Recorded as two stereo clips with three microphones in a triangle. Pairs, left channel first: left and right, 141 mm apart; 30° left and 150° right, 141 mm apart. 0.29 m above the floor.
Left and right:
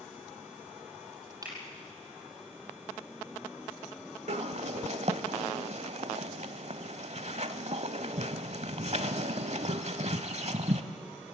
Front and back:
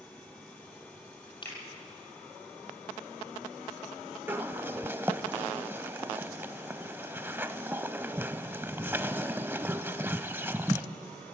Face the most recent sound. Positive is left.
turn(degrees=-80)